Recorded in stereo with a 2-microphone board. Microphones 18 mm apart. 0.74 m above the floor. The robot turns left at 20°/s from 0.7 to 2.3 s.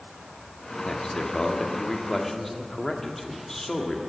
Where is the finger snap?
No finger snap in this recording.